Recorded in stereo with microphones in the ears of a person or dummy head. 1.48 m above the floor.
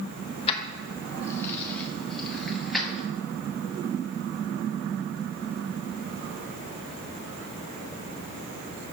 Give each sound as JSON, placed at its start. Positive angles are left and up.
{"t": 0.5, "sound": "keys jangling", "side_deg": 35, "distance_m": 0.8}